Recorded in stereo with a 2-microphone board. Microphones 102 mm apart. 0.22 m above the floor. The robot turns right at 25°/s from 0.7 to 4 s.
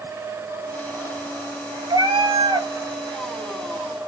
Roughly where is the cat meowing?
Right.